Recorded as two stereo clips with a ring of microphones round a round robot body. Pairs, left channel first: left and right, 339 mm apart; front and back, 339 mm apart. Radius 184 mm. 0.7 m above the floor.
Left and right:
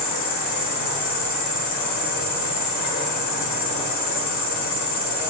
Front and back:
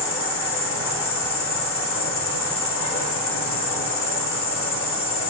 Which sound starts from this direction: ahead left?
An insect, at 0.0 s.